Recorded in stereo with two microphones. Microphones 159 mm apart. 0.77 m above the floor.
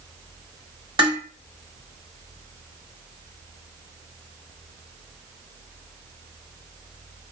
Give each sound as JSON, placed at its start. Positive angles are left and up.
{"t": 1.0, "sound": "dishes clattering", "side_deg": -30, "distance_m": 1.2}